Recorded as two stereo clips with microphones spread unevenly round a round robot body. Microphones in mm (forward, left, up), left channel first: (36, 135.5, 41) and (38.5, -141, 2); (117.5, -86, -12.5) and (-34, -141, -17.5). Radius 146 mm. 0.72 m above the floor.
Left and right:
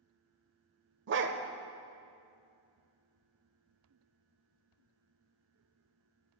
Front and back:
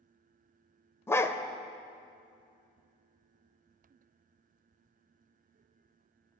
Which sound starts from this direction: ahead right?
A dog barking, at 1.1 s.